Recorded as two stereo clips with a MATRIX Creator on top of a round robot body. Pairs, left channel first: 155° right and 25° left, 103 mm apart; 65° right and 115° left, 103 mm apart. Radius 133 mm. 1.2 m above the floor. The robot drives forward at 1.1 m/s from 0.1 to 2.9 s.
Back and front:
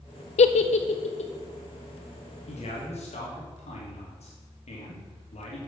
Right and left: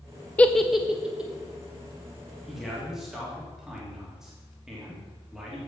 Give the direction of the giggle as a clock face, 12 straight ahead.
5 o'clock.